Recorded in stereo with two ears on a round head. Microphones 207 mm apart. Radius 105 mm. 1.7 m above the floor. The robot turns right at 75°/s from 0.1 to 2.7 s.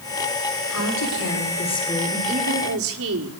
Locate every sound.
0.7 s a woman speaking: 80° left, 6 m; by 2.2 s 170° right, 6 m
2.3 s a woman speaking: 140° right, 4.5 m; by 3.4 s 110° right, 4.5 m